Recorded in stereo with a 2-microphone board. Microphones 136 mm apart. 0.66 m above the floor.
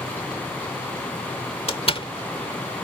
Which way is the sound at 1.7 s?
50° left (ahead or behind).